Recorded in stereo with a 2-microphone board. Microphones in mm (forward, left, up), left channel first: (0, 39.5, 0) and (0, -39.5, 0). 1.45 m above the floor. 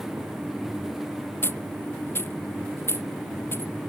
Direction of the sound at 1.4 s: 30° left (ahead or behind).